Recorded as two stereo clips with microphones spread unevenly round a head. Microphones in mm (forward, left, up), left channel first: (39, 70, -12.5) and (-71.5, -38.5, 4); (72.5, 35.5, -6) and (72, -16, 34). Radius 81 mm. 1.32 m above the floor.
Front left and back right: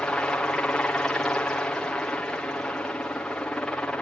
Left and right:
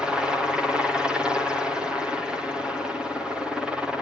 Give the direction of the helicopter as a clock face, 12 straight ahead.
8 o'clock.